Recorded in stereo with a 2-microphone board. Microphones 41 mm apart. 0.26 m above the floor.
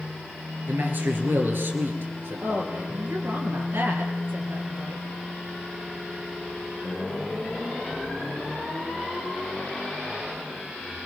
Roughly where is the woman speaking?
Right.